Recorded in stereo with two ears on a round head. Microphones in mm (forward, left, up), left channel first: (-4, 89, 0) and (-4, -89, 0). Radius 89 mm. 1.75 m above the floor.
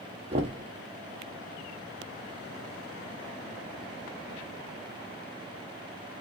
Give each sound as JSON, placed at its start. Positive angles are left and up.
{"t": 0.3, "sound": "knocking", "side_deg": -30, "distance_m": 0.8}